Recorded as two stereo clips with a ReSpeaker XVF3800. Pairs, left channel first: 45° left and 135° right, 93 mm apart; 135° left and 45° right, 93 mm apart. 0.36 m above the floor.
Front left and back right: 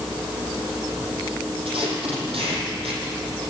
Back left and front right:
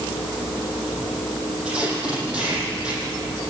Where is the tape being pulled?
125° right, 8 m.